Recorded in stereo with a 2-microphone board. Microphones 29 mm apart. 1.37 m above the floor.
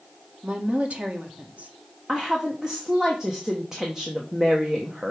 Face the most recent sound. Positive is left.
turn(degrees=-20)  # may be behind; listen again after turning